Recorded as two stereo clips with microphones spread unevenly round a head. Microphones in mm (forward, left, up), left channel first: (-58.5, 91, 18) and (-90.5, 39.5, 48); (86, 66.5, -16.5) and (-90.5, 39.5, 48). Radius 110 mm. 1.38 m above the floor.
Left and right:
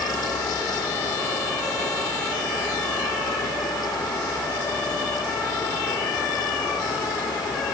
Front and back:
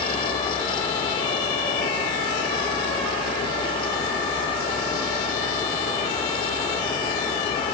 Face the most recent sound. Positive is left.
No sound to turn to.